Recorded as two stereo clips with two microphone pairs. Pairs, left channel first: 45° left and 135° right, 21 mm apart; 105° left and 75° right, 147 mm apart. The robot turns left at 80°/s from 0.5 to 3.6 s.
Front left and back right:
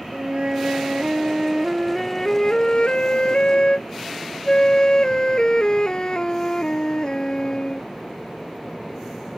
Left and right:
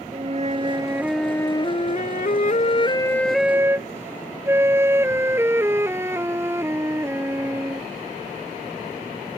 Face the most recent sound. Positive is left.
turn(degrees=-5)